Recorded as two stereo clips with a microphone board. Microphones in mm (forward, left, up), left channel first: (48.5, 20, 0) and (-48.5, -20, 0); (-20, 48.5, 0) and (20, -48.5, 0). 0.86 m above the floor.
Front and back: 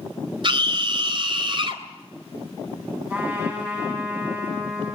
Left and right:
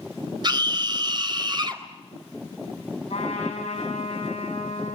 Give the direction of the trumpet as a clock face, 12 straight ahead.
8 o'clock.